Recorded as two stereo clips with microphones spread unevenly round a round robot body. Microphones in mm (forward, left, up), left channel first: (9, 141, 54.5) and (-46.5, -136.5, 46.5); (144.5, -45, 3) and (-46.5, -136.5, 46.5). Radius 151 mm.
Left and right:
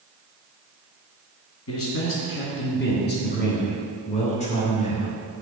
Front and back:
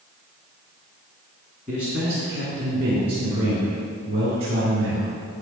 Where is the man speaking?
115° left, 2.5 m; by 5.2 s 150° left, 3.5 m.